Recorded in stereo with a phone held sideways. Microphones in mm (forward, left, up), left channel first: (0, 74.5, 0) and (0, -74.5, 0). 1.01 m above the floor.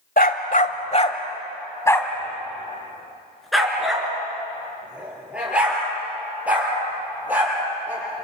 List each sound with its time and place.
0.2 s a dog barking: 65° left (ahead or behind), 1.4 m; by 8.2 s 10° right (ahead or behind), 9.5 m